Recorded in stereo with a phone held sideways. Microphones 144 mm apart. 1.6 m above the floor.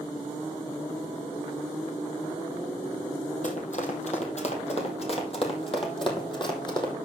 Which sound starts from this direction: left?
Running footsteps, at 3.4 s.